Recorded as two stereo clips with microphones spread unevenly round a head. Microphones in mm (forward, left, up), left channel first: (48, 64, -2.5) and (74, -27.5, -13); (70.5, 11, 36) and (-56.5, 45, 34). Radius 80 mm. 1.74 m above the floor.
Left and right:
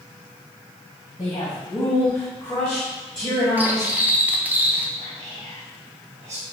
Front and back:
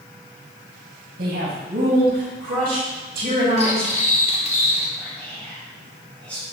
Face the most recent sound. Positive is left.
turn(degrees=-95)